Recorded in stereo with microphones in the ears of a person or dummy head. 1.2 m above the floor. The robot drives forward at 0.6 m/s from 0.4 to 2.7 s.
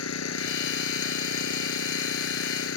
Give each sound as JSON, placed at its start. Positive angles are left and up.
{"t": 0.0, "sound": "an engine running", "side_deg": 80}